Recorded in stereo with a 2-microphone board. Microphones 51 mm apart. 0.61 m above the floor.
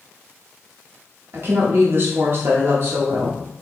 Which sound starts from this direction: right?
A woman speaking, at 1.3 s.